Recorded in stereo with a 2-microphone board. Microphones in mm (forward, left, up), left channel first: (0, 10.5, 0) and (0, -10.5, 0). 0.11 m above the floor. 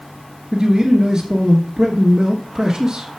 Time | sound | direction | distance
0.5 | a man speaking | 30° right (ahead or behind) | 1.4 m